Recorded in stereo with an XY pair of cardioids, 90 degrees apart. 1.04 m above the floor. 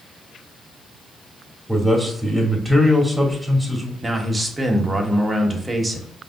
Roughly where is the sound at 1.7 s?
Ahead.